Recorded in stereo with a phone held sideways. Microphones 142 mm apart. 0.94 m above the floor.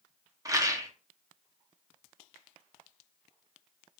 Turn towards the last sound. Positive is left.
turn(degrees=-25)  # may be behind; listen again after turning